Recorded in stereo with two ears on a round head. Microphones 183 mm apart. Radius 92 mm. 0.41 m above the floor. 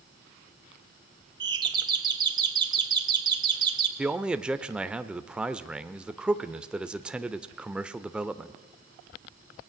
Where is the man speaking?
5° right (ahead or behind), 0.9 m.